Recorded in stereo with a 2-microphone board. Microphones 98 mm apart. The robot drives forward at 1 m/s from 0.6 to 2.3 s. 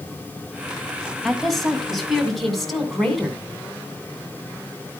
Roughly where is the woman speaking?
Centre.